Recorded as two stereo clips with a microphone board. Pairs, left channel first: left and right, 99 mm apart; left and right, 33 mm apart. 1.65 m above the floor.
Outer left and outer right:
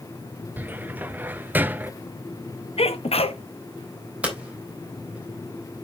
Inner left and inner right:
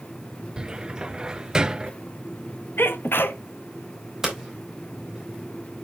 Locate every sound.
0.6 s a cupboard door: 20° right (ahead or behind), 0.6 m
2.8 s a sneeze: 85° left, 1.1 m
4.2 s hammering: 15° right (ahead or behind), 3.5 m